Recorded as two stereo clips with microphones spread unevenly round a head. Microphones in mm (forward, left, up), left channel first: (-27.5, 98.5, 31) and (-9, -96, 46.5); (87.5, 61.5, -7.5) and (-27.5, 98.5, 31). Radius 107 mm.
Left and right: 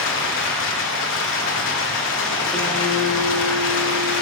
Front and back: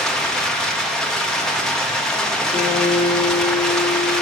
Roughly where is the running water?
Ahead left.